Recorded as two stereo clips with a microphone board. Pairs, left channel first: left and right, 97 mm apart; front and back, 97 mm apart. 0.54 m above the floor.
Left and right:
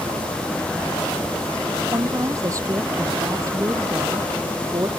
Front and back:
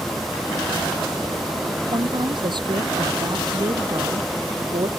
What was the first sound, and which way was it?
A woman speaking, 145° right.